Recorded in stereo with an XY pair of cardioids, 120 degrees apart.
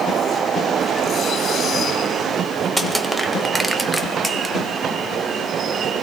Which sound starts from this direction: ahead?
Crushing, at 2.8 s.